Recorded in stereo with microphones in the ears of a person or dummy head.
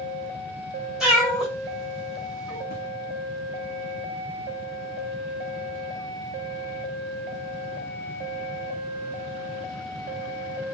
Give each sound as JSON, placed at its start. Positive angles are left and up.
{"t": 1.0, "sound": "a cat meowing", "side_deg": 0, "distance_m": 0.9}
{"t": 2.7, "sound": "an explosion", "side_deg": 50, "distance_m": 0.9}